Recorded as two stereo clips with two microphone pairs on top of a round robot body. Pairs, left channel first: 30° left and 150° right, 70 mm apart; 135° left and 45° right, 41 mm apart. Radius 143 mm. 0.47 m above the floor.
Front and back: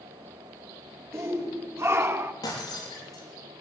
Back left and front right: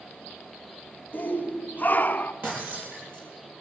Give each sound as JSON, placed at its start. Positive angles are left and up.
{"t": 1.1, "sound": "a shout", "azimuth_deg": 165, "distance_m": 2.0}
{"t": 2.4, "sound": "breaking glass", "azimuth_deg": -5, "distance_m": 5.5}